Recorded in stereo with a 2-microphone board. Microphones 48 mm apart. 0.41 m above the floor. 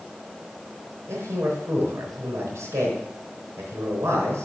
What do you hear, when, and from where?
1.1 s a man speaking: 80° right, 4 m